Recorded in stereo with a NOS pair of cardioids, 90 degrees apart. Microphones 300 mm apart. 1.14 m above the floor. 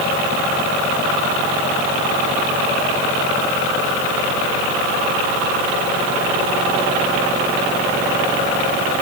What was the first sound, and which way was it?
Only background noise.